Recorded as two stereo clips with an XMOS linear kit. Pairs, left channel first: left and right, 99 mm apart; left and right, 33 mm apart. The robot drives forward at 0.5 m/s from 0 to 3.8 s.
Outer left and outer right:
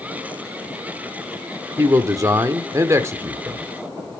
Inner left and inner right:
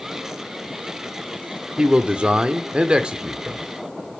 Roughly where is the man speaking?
Right.